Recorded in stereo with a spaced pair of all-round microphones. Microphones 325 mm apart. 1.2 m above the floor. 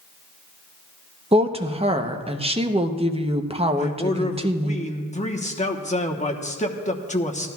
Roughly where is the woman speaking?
Centre.